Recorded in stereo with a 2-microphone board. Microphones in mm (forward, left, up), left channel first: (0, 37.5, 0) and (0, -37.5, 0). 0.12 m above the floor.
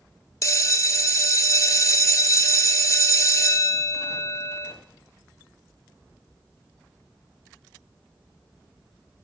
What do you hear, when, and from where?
0.4 s a bell: 45° left (ahead or behind), 0.6 m